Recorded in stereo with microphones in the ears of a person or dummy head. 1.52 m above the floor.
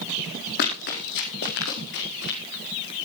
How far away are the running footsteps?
About 4.5 m.